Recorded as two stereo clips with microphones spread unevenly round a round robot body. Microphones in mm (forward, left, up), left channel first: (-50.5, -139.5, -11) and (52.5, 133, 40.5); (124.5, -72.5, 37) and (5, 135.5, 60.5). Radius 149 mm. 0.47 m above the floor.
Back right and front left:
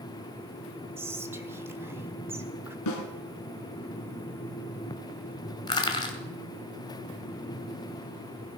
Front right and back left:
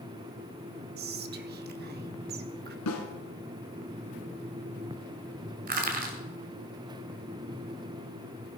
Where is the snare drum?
85° right, 2 m.